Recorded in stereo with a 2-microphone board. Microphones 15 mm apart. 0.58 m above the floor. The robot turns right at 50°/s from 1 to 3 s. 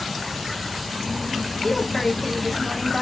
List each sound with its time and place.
1.6 s a woman speaking: 120° left, 0.8 m; by 3.0 s 170° right, 0.8 m